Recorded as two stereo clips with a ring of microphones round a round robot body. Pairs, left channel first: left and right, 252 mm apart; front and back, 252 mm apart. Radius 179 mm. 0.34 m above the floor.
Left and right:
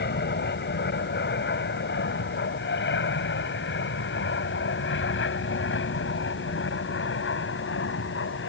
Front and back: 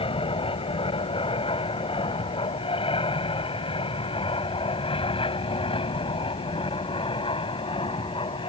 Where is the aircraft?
60° left; by 8.5 s 65° left.